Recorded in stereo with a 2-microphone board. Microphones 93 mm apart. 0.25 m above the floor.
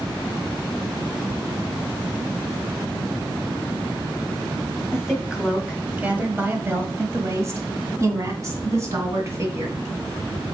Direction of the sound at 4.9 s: 5° right (ahead or behind).